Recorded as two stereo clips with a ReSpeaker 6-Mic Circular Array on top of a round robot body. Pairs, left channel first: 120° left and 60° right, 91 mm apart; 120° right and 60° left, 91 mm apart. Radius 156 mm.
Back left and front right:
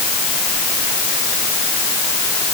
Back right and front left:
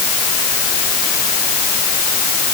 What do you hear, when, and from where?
Only background noise.